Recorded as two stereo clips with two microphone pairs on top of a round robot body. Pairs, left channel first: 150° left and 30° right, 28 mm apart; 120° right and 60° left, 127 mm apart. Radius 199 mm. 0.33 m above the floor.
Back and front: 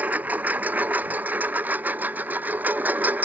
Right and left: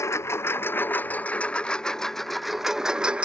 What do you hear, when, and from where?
0.0 s a lawn mower: 55° right; by 3.2 s 25° right